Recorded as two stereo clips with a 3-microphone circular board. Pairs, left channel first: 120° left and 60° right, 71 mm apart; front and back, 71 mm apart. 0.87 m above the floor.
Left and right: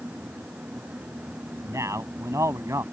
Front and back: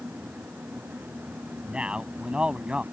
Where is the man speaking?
105° right.